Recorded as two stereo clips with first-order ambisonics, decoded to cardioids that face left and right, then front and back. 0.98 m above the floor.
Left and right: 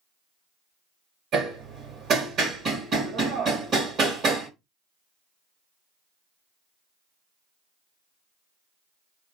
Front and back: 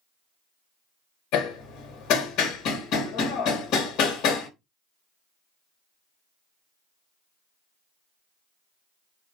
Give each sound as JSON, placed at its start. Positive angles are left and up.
{"t": 1.3, "sound": "hammering", "azimuth_deg": -35, "distance_m": 1.7}